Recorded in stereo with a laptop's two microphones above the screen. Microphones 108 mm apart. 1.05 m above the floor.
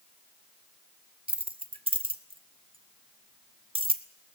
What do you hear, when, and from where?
1.3 s keys jangling: 55° right (ahead or behind), 1.2 m